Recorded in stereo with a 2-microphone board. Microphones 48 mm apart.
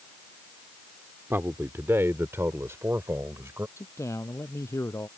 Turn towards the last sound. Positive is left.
turn(degrees=90)